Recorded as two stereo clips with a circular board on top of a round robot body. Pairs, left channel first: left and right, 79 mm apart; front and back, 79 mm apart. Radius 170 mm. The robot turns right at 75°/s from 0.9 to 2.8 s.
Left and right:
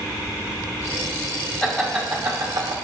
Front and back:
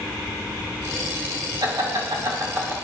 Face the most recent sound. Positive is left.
turn(degrees=-115)